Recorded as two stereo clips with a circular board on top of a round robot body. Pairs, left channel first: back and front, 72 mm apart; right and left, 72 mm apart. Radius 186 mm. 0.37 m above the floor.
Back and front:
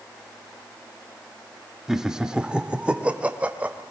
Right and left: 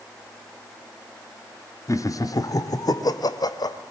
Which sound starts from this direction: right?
Laughter, at 1.9 s.